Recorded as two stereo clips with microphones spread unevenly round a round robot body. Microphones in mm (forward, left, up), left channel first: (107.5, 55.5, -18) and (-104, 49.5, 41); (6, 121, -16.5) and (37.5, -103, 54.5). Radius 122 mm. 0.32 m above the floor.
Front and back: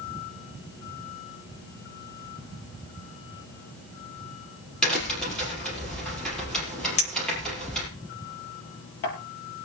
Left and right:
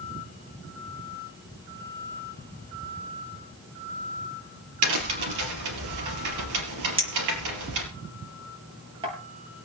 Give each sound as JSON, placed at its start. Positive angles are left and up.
{"t": 4.8, "sound": "a crack", "azimuth_deg": -85, "distance_m": 4.5}
{"t": 7.0, "sound": "a clink", "azimuth_deg": -10, "distance_m": 6.0}